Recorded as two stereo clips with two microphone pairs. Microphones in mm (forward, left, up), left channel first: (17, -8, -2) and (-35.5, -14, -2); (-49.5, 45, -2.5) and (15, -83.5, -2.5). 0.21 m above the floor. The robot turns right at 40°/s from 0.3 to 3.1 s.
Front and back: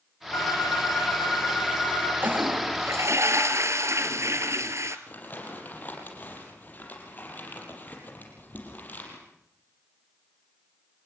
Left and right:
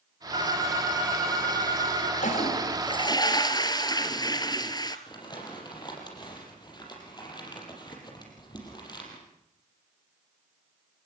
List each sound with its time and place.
0.3 s a phone ringing: 10° right, 8.5 m; by 2.1 s 60° left, 8.5 m
2.2 s a toilet flushing: 140° left, 1.8 m; by 5.0 s 175° left, 1.8 m
5.1 s crumpling: 60° left, 6.5 m